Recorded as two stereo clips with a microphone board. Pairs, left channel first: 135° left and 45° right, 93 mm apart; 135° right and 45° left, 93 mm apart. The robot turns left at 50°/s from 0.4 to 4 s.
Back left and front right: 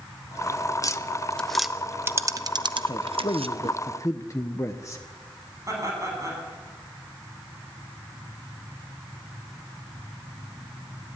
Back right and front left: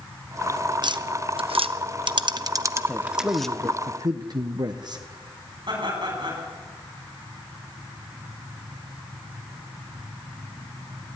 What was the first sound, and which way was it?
Tapping, 85° left.